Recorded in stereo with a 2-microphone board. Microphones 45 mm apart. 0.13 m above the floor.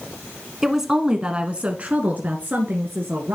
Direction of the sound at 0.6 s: 5° right (ahead or behind).